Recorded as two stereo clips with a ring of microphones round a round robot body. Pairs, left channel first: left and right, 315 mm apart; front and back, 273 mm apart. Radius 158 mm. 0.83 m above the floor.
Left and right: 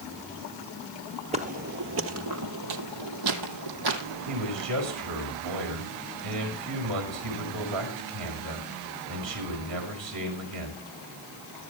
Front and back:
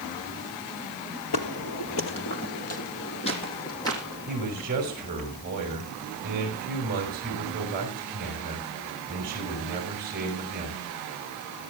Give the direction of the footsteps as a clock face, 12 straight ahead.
1 o'clock.